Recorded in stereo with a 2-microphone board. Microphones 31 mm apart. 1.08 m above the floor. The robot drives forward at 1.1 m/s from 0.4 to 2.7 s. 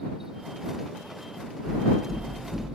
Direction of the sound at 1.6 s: 55° left (ahead or behind).